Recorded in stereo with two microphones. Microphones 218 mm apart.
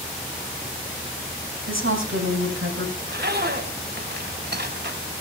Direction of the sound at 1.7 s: 70° right (ahead or behind).